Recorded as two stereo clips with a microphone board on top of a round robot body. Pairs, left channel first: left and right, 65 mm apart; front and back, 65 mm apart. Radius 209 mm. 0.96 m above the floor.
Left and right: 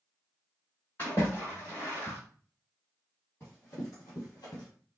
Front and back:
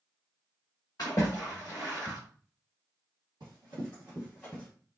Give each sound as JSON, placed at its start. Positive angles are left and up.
{"t": 1.0, "sound": "a splash", "azimuth_deg": 45, "distance_m": 0.8}
{"t": 3.4, "sound": "running footsteps", "azimuth_deg": 160, "distance_m": 1.4}